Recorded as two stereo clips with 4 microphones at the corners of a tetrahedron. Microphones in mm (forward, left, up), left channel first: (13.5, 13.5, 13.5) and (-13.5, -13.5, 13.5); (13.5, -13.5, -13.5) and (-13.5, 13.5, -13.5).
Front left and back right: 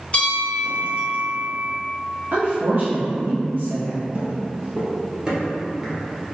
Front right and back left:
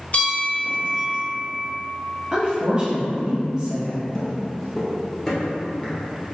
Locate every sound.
0.1 s a bell: 5° right, 1.1 m
2.3 s a woman speaking: 160° right, 1.3 m
4.1 s footsteps: 125° right, 1.6 m; by 6.3 s 40° right, 1.4 m